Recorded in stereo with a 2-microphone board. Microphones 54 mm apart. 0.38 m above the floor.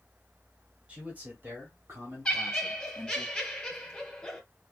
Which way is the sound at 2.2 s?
10° left (ahead or behind).